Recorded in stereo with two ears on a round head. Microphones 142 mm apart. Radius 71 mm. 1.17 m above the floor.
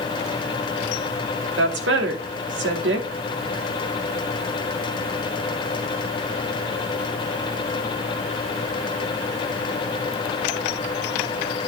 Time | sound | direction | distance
1.6 | a woman speaking | 80° right | 2.5 m